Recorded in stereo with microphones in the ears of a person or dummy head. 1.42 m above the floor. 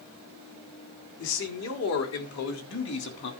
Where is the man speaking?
90° left, 4 m; by 3.3 s 55° left (ahead or behind), 3 m.